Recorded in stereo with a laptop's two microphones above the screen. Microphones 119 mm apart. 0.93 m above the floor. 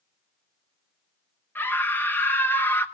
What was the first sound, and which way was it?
A scream, 15° left (ahead or behind).